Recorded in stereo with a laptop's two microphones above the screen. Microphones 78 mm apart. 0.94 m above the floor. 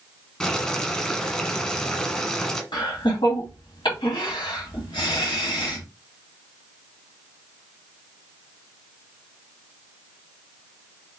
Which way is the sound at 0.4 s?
15° left (ahead or behind).